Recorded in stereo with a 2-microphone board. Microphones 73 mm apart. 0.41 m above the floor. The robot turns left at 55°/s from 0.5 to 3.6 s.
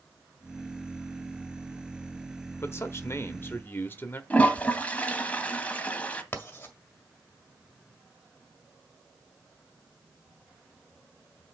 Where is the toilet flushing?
20° left (ahead or behind), 1.1 m.